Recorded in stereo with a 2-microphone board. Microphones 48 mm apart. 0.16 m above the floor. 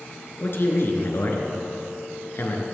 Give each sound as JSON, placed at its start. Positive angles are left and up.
{"t": 0.4, "sound": "a man speaking", "side_deg": 55, "distance_m": 2.5}